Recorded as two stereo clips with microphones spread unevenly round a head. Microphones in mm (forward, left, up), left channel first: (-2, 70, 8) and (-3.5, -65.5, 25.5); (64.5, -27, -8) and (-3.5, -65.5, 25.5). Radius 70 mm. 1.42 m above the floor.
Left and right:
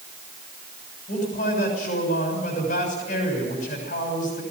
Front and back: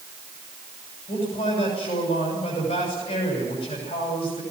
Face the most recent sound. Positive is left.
turn(degrees=55)